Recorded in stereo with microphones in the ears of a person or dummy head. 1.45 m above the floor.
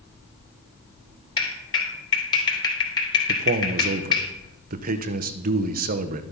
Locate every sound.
1.4 s a clap: 25° left (ahead or behind), 3.5 m
3.3 s a man speaking: 45° right (ahead or behind), 0.9 m